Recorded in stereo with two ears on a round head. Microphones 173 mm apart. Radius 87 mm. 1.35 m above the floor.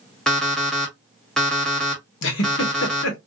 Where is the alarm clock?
5° left (ahead or behind), 1.1 m.